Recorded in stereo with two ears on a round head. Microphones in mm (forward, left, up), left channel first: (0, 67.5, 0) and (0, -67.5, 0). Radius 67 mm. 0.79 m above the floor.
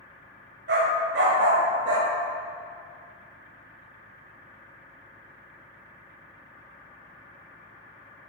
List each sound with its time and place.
0.7 s a dog barking: 85° right, 1.7 m